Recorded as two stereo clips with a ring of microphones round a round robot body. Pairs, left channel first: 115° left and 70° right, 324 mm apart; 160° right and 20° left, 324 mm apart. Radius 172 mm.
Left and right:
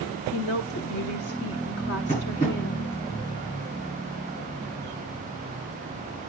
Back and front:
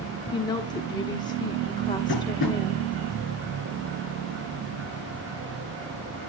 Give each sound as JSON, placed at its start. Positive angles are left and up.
{"t": 0.3, "sound": "a woman speaking", "azimuth_deg": 130, "distance_m": 1.2}
{"t": 2.1, "sound": "tapping", "azimuth_deg": 180, "distance_m": 8.0}